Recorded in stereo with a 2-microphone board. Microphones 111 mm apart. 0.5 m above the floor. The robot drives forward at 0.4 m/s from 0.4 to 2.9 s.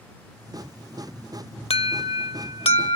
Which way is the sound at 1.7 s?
70° left (ahead or behind).